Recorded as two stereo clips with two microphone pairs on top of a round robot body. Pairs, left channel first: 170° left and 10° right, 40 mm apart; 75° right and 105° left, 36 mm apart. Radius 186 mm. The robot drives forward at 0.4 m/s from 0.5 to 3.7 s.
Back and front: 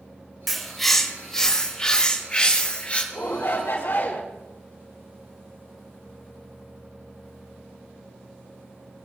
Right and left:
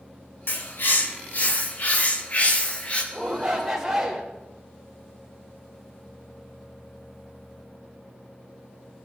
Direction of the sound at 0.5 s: 100° right.